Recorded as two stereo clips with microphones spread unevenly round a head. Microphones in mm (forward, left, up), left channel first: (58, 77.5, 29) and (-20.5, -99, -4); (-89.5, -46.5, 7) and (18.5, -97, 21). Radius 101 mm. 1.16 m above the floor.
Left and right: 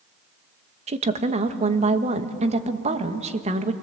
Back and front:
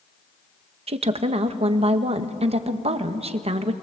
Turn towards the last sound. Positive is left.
turn(degrees=-60)